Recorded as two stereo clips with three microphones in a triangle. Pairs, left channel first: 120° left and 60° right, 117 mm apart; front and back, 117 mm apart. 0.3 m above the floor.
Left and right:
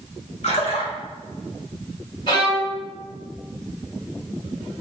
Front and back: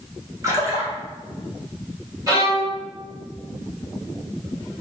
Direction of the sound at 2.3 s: 135° left.